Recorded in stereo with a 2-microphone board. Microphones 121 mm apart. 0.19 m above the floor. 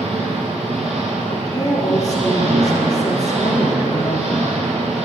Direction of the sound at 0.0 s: 60° right (ahead or behind).